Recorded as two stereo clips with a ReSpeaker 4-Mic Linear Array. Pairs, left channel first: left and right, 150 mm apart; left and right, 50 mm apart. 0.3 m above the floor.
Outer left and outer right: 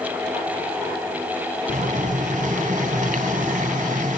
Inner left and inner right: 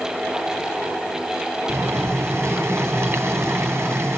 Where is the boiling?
60° right (ahead or behind), 1.3 m.